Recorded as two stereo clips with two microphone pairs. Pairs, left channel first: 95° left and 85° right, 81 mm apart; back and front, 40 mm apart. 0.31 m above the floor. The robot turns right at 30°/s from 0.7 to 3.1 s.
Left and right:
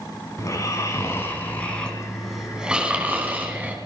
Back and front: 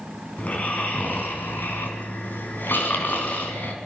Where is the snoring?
135° left, 3.5 m; by 3.8 s 150° right, 3.5 m.